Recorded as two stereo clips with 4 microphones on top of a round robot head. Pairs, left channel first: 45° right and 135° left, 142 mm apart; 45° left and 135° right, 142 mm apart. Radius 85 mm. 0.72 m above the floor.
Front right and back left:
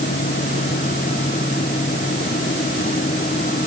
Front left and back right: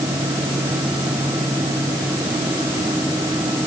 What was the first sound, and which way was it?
Only background noise.